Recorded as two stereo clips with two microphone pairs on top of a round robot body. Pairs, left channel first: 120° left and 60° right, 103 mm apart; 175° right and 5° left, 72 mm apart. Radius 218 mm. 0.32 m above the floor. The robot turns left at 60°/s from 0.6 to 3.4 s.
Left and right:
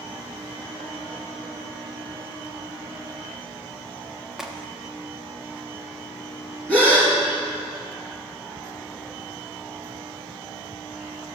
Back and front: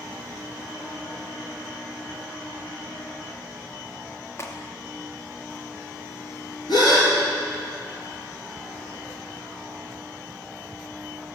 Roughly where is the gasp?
Behind.